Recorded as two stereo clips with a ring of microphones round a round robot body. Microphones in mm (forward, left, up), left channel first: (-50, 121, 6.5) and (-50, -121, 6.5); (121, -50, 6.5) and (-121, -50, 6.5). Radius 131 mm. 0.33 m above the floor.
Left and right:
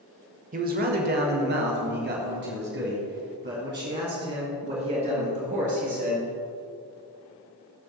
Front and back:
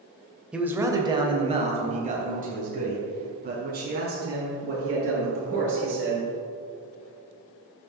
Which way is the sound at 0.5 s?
95° right.